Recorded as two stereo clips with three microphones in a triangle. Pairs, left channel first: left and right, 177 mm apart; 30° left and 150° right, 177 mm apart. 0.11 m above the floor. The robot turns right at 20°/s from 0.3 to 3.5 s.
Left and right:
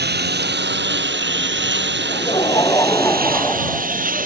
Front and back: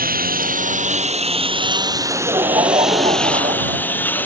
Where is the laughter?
145° left; by 4.3 s 175° left.